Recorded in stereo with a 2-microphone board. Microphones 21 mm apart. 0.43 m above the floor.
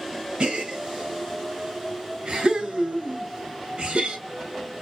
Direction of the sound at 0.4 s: 55° right (ahead or behind).